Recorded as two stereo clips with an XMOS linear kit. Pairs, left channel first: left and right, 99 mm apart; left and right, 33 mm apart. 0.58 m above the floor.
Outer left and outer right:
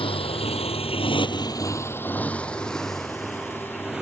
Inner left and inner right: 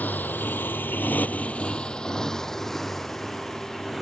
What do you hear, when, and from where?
0.0 s a motorcycle: 65° left (ahead or behind); by 4.0 s 5° right (ahead or behind)